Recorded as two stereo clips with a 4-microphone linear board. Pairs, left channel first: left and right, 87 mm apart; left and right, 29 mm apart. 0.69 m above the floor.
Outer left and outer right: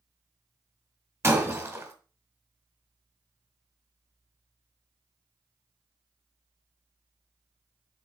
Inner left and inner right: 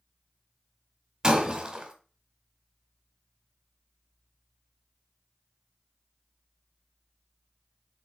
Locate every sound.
1.2 s breaking glass: 35° right (ahead or behind), 2 m